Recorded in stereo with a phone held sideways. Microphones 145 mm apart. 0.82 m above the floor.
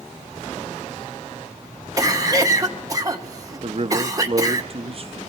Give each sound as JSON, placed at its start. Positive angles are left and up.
{"t": 2.0, "sound": "a cough", "side_deg": -25, "distance_m": 1.3}
{"t": 3.6, "sound": "a man speaking", "side_deg": -45, "distance_m": 0.6}